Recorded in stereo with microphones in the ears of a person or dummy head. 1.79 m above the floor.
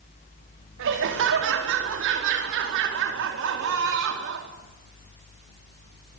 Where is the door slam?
I don't hear a door slam.